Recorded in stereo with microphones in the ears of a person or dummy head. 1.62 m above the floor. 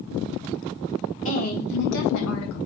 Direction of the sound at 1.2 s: 40° left (ahead or behind).